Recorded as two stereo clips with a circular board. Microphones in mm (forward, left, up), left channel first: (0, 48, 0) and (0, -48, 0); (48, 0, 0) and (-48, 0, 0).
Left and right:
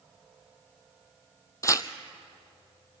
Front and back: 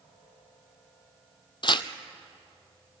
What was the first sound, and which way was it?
Tearing paper, 35° left.